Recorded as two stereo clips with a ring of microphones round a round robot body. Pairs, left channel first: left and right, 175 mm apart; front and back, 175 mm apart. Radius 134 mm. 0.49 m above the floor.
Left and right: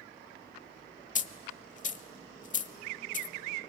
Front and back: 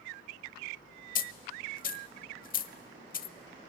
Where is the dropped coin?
40° left, 0.9 m.